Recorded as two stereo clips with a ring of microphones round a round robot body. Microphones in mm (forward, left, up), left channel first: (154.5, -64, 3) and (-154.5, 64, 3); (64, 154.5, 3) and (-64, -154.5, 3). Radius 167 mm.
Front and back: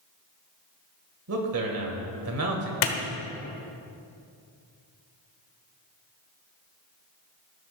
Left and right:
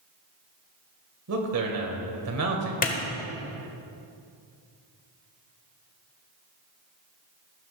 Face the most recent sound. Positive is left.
turn(degrees=0)